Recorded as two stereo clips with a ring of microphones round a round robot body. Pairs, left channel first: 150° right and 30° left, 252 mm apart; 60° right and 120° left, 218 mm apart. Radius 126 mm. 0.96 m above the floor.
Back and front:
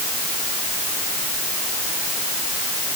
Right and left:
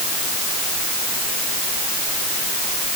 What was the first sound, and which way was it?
Only background noise.